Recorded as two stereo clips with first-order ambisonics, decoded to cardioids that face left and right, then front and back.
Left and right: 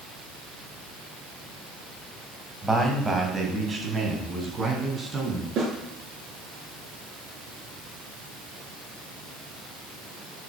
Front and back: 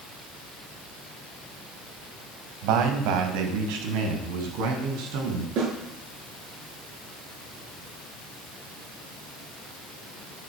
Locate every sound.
2.6 s a man speaking: 175° right, 2.5 m; by 5.5 s 160° right, 4.5 m
5.6 s a snare drum: 140° right, 6.5 m